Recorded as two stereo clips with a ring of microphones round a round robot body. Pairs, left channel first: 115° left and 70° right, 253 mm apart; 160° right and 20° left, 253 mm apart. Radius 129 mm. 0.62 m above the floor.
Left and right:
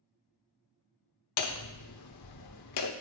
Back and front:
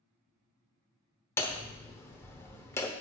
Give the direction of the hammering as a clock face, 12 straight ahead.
8 o'clock.